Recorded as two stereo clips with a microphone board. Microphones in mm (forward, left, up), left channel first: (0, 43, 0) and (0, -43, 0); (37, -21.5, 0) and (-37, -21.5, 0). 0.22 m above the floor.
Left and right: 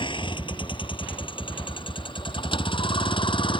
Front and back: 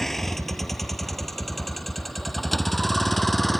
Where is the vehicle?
85° left; by 3.6 s 90° left.